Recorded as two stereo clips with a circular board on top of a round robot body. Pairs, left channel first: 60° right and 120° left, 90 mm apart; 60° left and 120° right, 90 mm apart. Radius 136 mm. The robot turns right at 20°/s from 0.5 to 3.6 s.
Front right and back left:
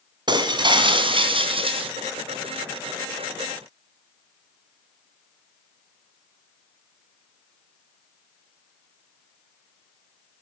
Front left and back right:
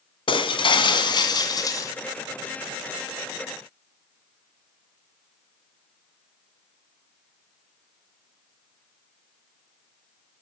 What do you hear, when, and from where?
0.3 s breaking glass: 85° left, 2.5 m; by 1.9 s 110° left, 2.5 m